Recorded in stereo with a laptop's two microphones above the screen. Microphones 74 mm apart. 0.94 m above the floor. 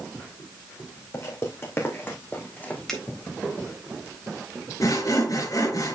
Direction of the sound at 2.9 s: 5° left (ahead or behind).